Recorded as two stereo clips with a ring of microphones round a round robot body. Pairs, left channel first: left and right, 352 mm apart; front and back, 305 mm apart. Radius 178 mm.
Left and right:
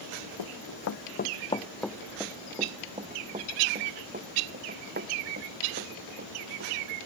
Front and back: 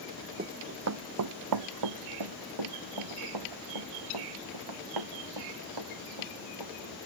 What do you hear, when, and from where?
0.4 s running footsteps: 115° left; by 6.7 s 150° right